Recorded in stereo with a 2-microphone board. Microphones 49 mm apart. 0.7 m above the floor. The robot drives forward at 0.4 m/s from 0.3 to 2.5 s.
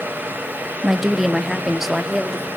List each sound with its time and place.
0.8 s a woman speaking: 5° right (ahead or behind), 0.7 m